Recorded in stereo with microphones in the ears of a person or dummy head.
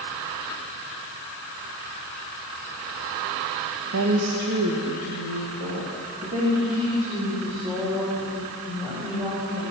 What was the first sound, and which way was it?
A woman speaking, 75° right (ahead or behind).